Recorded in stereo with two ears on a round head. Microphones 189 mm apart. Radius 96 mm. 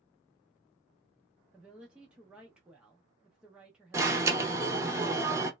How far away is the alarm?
About 0.7 m.